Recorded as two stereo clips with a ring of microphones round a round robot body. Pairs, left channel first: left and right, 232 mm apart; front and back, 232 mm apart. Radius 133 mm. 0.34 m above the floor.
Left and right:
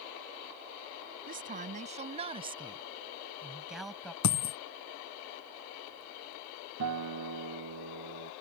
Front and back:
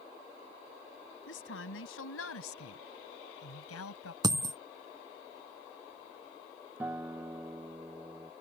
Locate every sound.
1.3 s a woman speaking: 40° right; by 4.1 s 5° left
4.2 s a dropped coin: 105° left
6.8 s a guitar: 95° right